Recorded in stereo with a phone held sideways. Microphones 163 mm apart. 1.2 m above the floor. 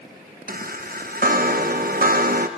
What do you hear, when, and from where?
0.5 s a chime: 65° right (ahead or behind), 0.8 m